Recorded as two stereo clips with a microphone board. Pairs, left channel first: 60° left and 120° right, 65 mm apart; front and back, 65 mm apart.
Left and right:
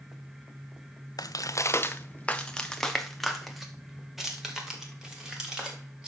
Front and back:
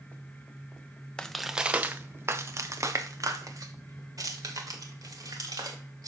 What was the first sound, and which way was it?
Footsteps, 75° left.